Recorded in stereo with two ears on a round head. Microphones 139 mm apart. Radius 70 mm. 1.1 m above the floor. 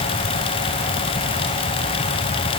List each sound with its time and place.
Only background noise.